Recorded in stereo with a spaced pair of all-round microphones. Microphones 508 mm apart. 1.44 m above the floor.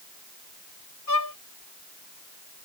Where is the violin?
40° left (ahead or behind).